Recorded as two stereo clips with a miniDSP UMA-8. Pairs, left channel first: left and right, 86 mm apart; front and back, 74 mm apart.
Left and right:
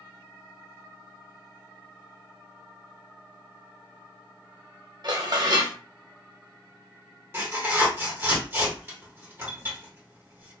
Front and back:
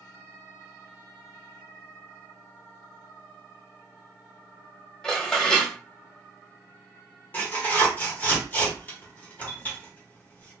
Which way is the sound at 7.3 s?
50° right.